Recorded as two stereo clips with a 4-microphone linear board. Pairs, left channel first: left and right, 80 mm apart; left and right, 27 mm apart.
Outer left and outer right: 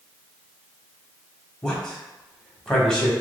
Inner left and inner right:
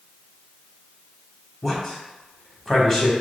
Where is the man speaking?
10° left (ahead or behind), 1.0 m.